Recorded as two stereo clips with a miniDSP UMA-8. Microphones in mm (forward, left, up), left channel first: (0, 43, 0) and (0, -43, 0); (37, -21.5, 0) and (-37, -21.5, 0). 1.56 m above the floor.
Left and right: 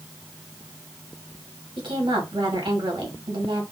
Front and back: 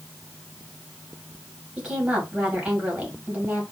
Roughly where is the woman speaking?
Right.